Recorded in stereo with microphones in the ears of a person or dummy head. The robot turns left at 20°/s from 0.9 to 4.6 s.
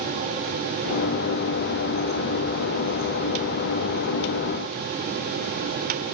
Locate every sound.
Only background noise.